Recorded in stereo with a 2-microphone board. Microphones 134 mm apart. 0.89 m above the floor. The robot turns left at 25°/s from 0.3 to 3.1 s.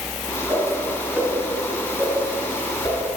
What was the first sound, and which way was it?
A whoosh, 30° right (ahead or behind).